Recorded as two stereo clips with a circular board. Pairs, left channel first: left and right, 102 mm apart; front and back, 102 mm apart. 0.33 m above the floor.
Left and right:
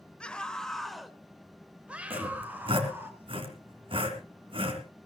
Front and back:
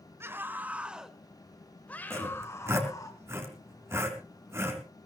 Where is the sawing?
115° right, 3.5 m.